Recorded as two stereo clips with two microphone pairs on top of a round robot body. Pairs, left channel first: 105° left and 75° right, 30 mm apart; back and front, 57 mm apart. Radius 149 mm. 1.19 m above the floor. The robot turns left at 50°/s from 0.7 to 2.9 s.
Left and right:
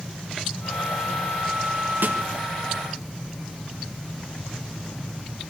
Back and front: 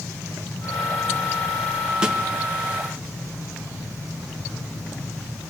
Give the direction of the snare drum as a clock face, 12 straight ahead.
2 o'clock.